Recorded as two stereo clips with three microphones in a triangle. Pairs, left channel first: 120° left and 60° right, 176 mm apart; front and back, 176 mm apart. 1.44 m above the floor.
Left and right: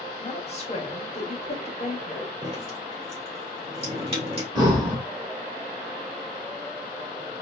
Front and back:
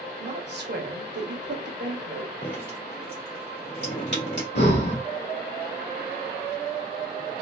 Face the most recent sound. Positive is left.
turn(degrees=5)